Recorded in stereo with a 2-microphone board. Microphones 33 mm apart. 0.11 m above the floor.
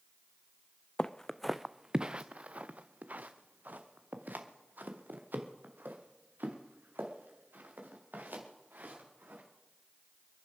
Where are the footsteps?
30° left (ahead or behind), 0.6 m; by 9.4 s 70° right (ahead or behind), 5 m.